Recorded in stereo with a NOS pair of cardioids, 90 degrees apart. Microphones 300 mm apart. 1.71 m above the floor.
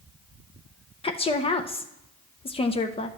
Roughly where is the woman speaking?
Ahead.